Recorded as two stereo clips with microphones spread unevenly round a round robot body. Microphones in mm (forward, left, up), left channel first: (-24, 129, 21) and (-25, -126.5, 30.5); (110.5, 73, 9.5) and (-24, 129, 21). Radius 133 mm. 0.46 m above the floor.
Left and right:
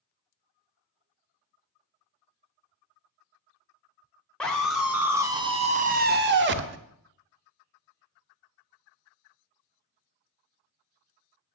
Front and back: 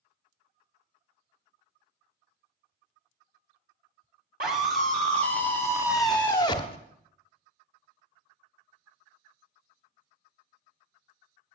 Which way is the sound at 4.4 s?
175° left.